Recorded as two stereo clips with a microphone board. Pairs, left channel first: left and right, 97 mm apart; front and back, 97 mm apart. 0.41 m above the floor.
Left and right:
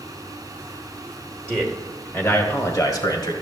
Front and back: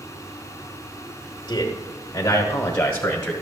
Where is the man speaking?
Straight ahead, 1.1 m; by 3.3 s 80° left, 1.2 m.